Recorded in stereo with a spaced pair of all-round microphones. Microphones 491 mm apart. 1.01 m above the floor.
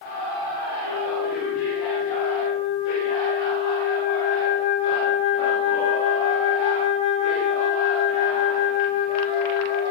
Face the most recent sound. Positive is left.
turn(degrees=-80)